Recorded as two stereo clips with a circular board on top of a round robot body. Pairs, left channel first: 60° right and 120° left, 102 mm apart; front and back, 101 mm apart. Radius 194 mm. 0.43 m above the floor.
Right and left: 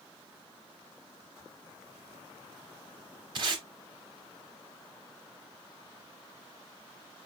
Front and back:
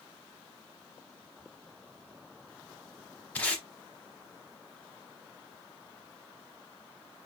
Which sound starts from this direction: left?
Tape being pulled, at 3.4 s.